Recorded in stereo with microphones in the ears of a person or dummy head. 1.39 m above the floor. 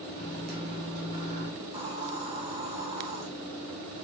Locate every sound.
0.2 s a microwave: 55° right (ahead or behind), 2.5 m
1.6 s a hiss: 35° right (ahead or behind), 2 m